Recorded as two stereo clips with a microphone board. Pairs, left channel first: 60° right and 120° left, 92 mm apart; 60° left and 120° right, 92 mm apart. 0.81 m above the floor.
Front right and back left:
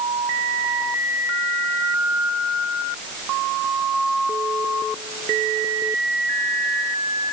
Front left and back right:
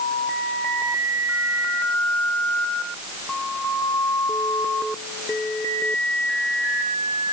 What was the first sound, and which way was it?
Only background noise.